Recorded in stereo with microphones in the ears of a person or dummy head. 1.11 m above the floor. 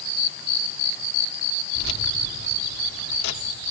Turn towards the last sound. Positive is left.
turn(degrees=60)  # may be behind; listen again after turning